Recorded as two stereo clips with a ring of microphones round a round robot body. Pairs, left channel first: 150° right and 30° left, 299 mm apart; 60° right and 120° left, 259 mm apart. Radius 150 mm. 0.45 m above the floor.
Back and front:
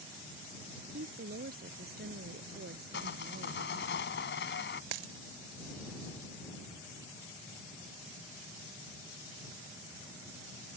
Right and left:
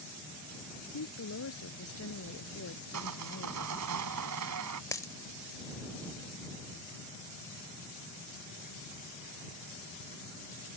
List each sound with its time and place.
0.9 s a woman speaking: 30° right
2.9 s sawing: 155° left
4.9 s a dropped coin: 20° left